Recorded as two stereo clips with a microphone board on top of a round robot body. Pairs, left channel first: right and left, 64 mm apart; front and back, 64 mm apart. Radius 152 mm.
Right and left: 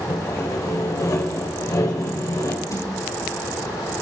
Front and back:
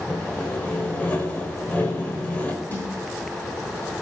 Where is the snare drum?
60° right, 9.5 m.